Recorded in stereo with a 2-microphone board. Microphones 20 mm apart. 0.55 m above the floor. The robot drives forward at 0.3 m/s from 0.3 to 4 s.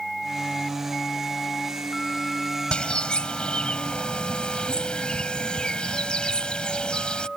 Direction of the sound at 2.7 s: 75° left (ahead or behind).